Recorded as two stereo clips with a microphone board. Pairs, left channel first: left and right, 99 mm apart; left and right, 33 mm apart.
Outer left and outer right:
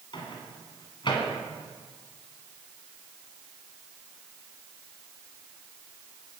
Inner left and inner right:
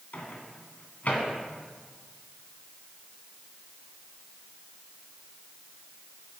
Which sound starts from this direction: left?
A microwave, at 0.1 s.